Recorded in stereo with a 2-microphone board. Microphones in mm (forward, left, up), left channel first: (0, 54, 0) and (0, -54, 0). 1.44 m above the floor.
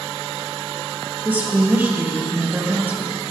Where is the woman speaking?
20° right (ahead or behind), 1.8 m.